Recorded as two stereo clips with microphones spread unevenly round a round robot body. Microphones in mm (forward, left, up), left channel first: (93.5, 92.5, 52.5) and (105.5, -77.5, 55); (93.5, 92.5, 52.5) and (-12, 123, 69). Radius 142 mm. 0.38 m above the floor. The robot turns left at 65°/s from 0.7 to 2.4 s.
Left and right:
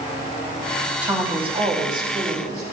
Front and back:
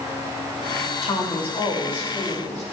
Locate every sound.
1.0 s a woman speaking: 5° right, 3 m; by 2.6 s 95° right, 3 m